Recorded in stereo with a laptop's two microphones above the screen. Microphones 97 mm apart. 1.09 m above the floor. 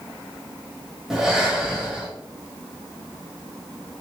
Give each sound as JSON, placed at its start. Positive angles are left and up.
{"t": 1.1, "sound": "breathing", "side_deg": -5, "distance_m": 0.9}